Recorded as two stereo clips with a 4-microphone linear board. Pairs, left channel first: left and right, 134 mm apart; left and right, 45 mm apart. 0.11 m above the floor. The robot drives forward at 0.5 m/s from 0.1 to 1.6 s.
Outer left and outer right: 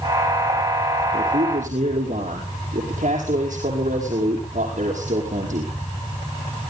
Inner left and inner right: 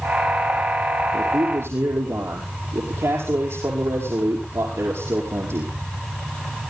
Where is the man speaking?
70° right (ahead or behind), 5 m.